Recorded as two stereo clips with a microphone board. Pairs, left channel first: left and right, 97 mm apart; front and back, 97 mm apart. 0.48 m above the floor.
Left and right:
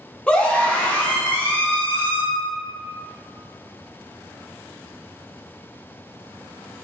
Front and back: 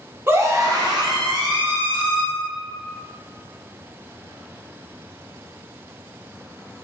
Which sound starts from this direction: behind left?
A scream, at 0.3 s.